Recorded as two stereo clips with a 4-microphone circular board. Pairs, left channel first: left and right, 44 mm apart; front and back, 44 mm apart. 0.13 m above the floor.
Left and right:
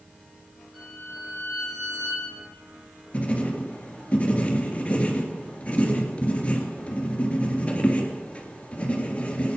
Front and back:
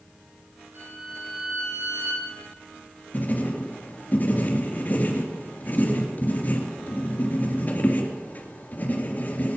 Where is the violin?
175° left, 6.5 m.